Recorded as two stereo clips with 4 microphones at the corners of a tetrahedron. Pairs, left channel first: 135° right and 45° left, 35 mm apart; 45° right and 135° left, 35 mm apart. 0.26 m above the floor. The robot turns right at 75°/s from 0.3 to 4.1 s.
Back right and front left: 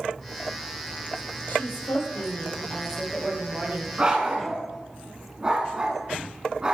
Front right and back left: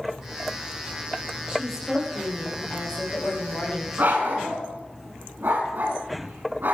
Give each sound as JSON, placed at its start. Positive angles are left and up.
{"t": 1.5, "sound": "a woman speaking", "azimuth_deg": -160, "distance_m": 7.0}
{"t": 4.0, "sound": "a dog barking", "azimuth_deg": 100, "distance_m": 8.5}